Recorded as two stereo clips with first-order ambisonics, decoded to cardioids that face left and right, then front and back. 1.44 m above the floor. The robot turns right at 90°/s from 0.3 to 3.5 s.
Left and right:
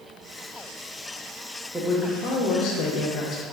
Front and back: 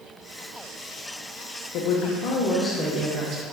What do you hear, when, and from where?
1.7 s a woman speaking: 5° right, 0.6 m; by 3.4 s 145° left, 0.6 m